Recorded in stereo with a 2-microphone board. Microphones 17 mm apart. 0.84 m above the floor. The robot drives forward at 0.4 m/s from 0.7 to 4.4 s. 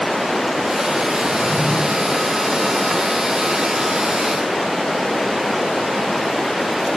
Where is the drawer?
25° right (ahead or behind), 0.8 m; by 1.8 s 20° right (ahead or behind), 1.0 m.